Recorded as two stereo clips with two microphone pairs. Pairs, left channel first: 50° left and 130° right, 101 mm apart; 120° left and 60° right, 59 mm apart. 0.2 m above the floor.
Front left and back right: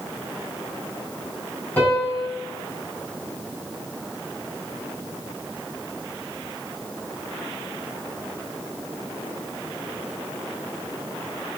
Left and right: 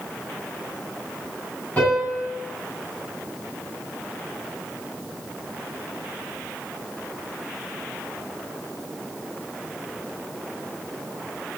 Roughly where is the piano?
Left.